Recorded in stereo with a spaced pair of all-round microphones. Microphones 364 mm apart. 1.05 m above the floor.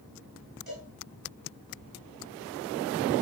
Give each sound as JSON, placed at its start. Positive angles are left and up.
{"t": 0.7, "sound": "a cowbell", "side_deg": -75, "distance_m": 7.5}